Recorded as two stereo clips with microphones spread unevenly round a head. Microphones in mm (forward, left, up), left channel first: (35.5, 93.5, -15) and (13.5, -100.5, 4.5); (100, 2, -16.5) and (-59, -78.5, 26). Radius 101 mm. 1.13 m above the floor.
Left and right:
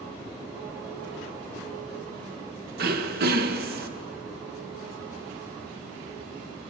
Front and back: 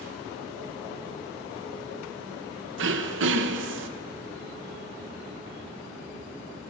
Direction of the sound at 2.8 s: 140° right.